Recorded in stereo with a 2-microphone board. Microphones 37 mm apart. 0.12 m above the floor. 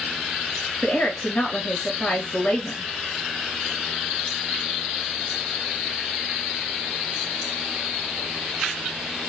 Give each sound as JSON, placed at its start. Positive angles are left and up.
{"t": 0.8, "sound": "a woman speaking", "side_deg": 30, "distance_m": 1.4}